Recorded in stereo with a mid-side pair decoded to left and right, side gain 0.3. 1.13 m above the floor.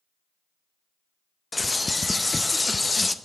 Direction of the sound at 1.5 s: 25° left.